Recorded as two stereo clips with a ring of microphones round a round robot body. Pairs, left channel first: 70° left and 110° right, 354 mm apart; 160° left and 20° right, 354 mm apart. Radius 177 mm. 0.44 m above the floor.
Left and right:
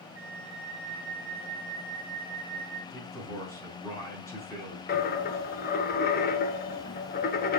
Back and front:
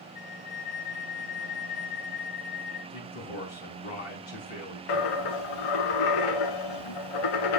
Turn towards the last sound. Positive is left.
turn(degrees=135)